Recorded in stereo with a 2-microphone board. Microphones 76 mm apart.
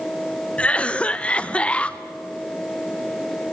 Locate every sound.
0.6 s a cough: 15° left (ahead or behind), 0.8 m